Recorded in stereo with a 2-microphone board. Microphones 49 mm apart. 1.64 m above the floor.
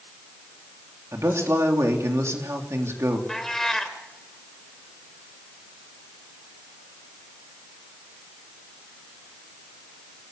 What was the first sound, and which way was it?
A man speaking, 85° right.